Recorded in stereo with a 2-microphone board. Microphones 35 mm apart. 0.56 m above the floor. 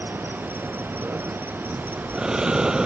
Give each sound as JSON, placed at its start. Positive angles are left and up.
{"t": 0.0, "sound": "an insect", "side_deg": -85}
{"t": 1.7, "sound": "breathing", "side_deg": -20}